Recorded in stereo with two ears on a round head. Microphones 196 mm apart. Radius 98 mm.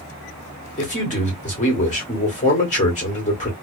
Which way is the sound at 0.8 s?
35° left (ahead or behind).